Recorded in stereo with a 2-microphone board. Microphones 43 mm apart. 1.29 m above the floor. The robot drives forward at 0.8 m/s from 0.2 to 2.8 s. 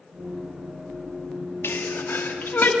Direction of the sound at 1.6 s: 65° left (ahead or behind).